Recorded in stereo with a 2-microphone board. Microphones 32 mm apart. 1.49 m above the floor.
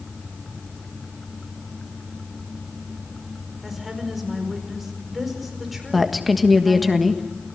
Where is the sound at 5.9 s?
Centre (ahead or behind), 1.5 m.